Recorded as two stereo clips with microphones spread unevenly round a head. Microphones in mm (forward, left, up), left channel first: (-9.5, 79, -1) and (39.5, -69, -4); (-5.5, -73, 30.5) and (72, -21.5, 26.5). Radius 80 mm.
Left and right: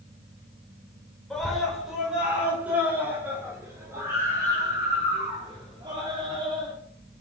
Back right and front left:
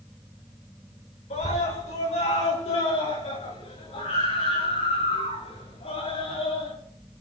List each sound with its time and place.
1.3 s a scream: 165° right, 6.5 m; by 6.7 s 135° right, 12.5 m